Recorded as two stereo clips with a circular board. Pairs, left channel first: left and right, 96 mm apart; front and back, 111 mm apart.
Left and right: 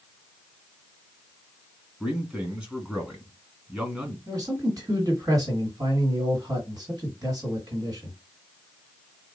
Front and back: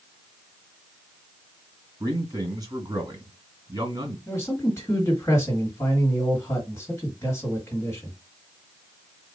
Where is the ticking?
I don't hear ticking.